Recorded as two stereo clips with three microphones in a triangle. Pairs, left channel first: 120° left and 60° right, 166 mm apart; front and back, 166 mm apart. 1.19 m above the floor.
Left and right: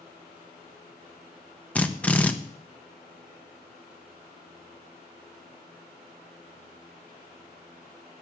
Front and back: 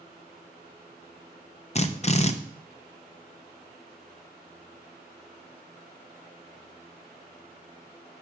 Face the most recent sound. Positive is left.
turn(degrees=40)